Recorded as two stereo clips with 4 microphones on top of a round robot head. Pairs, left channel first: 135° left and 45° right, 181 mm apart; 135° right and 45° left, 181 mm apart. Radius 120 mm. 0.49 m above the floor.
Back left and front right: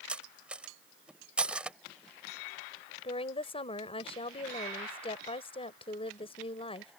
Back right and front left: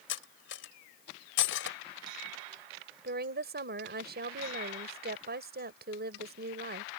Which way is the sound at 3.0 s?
75° left.